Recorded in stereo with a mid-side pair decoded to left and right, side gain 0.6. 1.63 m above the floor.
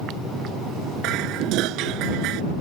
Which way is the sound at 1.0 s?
70° right.